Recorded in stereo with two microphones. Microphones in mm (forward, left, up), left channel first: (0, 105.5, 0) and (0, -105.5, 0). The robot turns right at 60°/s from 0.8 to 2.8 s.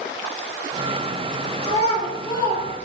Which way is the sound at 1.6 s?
25° left (ahead or behind).